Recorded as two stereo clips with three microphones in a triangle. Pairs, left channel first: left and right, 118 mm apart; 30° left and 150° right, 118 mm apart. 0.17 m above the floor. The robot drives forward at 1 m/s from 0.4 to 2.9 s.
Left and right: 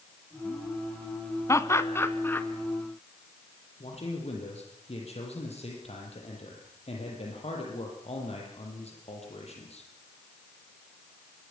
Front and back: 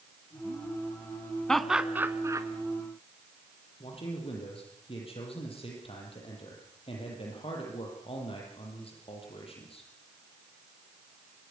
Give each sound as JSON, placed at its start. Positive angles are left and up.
{"t": 1.5, "sound": "laughter", "azimuth_deg": 110, "distance_m": 1.0}
{"t": 3.8, "sound": "a man speaking", "azimuth_deg": 65, "distance_m": 6.5}